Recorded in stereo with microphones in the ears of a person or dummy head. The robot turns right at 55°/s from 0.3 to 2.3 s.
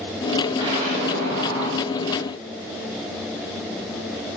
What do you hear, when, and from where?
0.6 s an explosion: 160° right, 0.6 m; by 1.8 s 90° right, 0.6 m